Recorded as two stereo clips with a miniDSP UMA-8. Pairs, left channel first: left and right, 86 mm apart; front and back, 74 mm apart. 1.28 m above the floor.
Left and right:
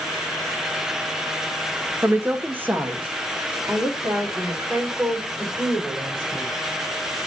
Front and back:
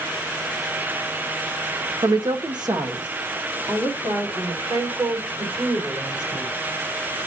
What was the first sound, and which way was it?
A woman speaking, 155° right.